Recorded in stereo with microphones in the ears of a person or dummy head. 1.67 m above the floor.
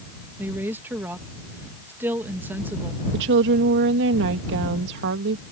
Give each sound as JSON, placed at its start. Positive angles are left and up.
{"t": 0.4, "sound": "a woman speaking", "side_deg": -15}
{"t": 3.1, "sound": "a woman speaking", "side_deg": -70}